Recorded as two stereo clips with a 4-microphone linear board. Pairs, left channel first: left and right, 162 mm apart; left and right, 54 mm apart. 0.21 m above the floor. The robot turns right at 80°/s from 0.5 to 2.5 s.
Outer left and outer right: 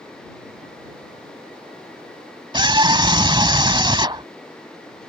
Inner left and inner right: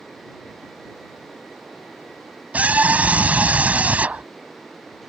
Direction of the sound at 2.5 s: 30° right (ahead or behind).